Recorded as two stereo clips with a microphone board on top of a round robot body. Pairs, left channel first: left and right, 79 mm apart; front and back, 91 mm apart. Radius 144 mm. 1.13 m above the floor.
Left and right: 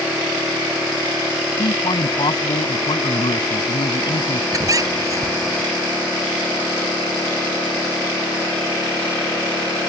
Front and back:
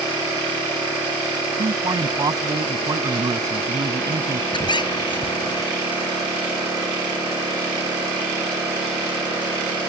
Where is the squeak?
40° right.